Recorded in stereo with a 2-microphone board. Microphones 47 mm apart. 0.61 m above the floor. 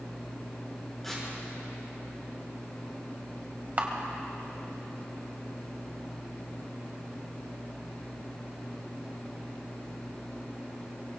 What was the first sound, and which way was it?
Tearing paper, 5° left (ahead or behind).